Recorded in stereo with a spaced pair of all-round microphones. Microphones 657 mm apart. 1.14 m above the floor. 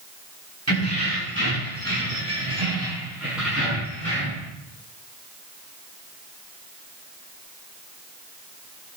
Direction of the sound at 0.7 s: 25° right (ahead or behind).